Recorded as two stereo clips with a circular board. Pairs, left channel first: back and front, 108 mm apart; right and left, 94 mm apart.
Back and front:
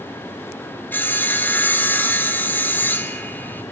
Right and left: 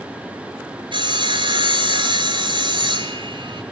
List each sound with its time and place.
0.9 s sawing: 110° left, 2.5 m